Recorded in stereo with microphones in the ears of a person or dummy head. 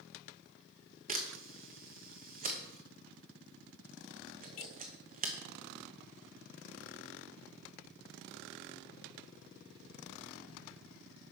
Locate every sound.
1.1 s a camera shutter: 40° right (ahead or behind), 1.1 m